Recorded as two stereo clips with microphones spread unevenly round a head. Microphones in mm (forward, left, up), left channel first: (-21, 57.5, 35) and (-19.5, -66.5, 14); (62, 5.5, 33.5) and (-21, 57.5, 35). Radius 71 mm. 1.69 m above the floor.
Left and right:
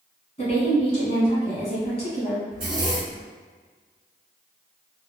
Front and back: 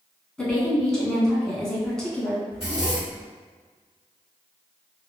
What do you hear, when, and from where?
0.4 s a woman speaking: 55° left, 1.0 m
2.5 s a zipper: 135° right, 1.6 m